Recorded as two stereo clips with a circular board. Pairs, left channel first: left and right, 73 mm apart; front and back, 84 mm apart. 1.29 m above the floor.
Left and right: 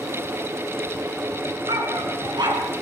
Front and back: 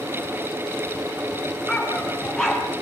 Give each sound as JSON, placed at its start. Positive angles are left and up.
{"t": 1.7, "sound": "a dog barking", "azimuth_deg": -85, "distance_m": 5.0}